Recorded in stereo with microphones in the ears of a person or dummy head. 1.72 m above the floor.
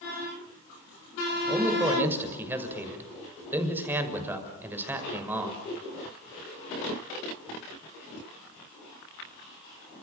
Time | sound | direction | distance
1.5 | a man speaking | 10° right (ahead or behind) | 6.5 m